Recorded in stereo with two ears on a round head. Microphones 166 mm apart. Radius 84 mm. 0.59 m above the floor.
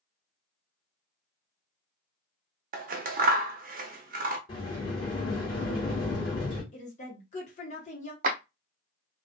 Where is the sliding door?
25° left (ahead or behind), 1.6 m.